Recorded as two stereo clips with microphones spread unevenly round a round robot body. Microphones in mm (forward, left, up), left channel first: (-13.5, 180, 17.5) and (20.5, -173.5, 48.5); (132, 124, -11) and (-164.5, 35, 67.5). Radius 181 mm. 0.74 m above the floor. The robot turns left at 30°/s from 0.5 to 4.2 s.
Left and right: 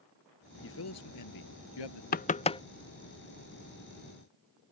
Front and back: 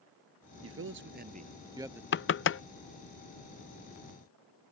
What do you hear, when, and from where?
0.6 s a man speaking: 155° left; by 2.0 s 110° left
2.1 s knocking: 40° left; by 2.6 s 25° left